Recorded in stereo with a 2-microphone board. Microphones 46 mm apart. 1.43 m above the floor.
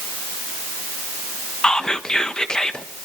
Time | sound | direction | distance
1.6 | whispering | 20° left (ahead or behind) | 1.4 m